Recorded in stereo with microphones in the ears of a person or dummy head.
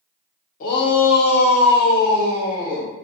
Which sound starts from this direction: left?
A shout, at 0.6 s.